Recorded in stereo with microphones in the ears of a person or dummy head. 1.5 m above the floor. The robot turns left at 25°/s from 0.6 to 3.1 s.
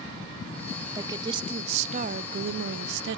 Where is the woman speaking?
20° right, 0.5 m; by 3.2 s 75° right, 0.5 m.